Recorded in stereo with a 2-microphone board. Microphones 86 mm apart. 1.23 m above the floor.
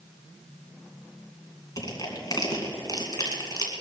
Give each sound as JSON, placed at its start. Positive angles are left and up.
{"t": 1.8, "sound": "crushing", "side_deg": 45, "distance_m": 2.5}